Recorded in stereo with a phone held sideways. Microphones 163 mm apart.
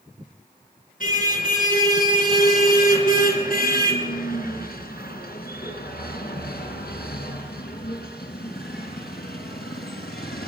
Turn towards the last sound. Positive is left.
turn(degrees=85)